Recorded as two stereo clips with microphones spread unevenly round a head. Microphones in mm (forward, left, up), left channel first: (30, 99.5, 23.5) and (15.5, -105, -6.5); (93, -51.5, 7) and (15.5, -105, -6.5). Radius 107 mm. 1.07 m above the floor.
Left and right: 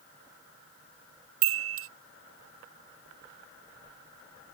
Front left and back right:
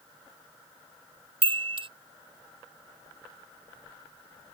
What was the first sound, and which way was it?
A chime, 120° right.